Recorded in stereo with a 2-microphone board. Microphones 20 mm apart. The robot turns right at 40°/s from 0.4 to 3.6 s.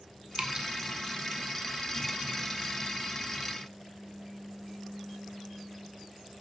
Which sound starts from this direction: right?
Dripping, at 0.3 s.